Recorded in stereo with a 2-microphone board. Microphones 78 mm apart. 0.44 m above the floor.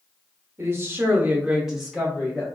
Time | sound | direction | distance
0.6 | a woman speaking | 35° right (ahead or behind) | 1.0 m